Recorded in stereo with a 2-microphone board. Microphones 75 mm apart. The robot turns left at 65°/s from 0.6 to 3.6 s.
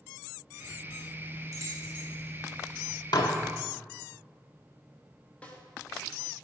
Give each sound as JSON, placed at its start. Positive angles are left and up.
{"t": 1.5, "sound": "keys jangling", "side_deg": -45, "distance_m": 2.0}
{"t": 3.1, "sound": "dishes clattering", "side_deg": 65, "distance_m": 0.7}
{"t": 5.4, "sound": "a snare drum", "side_deg": 20, "distance_m": 1.0}